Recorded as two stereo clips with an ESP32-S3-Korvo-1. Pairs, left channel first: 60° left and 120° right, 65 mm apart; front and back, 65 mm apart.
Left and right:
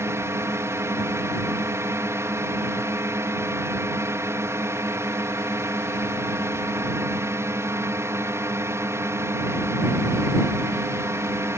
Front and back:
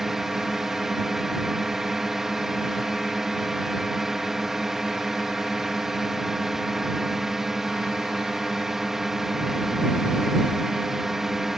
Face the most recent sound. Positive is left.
turn(degrees=-100)